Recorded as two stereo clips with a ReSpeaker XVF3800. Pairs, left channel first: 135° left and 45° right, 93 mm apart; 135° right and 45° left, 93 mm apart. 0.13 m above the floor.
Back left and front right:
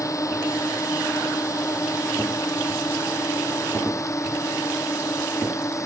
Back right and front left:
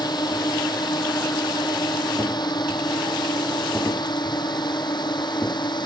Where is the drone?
170° right.